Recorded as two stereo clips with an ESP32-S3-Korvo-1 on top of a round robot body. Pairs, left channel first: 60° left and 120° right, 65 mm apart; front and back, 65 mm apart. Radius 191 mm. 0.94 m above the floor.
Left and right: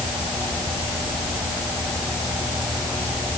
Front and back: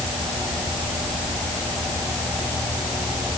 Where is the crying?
I don't hear crying.